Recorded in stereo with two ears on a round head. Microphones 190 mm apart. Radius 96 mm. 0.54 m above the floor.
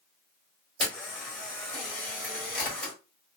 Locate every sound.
0.8 s a camera shutter: 5° left (ahead or behind), 1.7 m